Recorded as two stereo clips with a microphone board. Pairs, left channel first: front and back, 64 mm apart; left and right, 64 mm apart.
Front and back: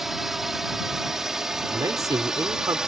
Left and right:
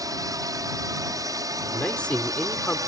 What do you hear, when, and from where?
0.0 s a drone: 95° right; by 2.9 s 100° right
1.7 s a man speaking: 160° left